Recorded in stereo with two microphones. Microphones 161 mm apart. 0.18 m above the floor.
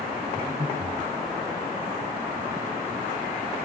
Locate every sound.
0.3 s breathing: 15° right (ahead or behind), 5 m